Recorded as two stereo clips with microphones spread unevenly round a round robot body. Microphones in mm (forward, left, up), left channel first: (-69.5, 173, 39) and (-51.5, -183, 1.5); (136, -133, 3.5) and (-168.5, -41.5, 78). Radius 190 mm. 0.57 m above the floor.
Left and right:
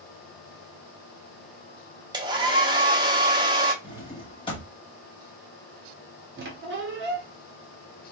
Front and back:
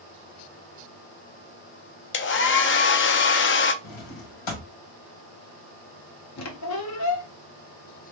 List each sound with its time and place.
2.1 s a hair dryer: 20° right, 0.6 m
3.8 s a drawer: 15° left, 1.2 m
6.4 s a squeak: 30° right, 1.0 m